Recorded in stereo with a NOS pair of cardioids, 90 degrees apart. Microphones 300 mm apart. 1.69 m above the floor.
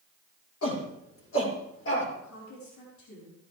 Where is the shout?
50° left, 6.5 m; by 2.1 s 40° left, 6.5 m.